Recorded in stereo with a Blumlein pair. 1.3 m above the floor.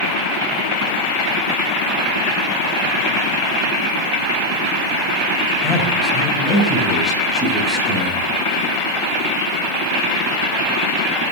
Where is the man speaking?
5° right, 6 m; by 8.3 s straight ahead, 8 m.